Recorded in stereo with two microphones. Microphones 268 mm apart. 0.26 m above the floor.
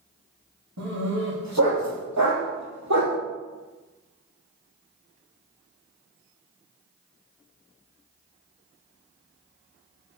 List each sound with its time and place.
0.8 s a dog barking: 65° right (ahead or behind), 4 m; by 3.2 s 80° right, 2.5 m